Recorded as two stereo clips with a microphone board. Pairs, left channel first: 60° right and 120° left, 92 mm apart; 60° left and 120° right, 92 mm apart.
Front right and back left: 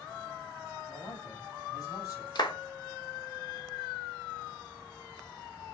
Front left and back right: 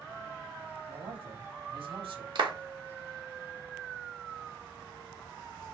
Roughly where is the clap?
Right.